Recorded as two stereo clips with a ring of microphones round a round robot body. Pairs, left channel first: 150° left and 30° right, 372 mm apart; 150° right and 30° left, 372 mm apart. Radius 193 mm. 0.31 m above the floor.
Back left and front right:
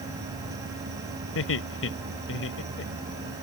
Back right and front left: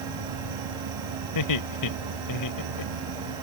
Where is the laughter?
160° right.